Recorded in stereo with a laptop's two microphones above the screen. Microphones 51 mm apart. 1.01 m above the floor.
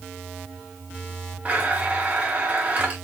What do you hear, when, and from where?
1.4 s a blender: 30° right (ahead or behind), 1.2 m